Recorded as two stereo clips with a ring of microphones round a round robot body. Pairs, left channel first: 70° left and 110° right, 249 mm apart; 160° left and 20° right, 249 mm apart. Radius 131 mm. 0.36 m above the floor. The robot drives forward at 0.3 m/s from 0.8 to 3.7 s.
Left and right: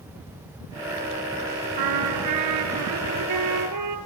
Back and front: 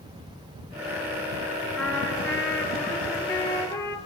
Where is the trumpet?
120° right, 3.5 m; by 4.0 s 130° right, 4 m.